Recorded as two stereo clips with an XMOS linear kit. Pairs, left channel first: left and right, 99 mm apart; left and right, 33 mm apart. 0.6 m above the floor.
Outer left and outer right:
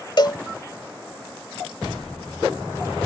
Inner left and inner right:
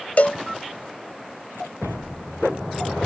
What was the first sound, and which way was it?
A cowbell, 50° left (ahead or behind).